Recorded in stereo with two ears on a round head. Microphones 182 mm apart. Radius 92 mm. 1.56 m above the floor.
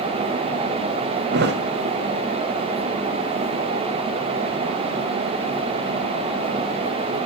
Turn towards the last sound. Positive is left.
turn(degrees=-55)  # may be behind; listen again after turning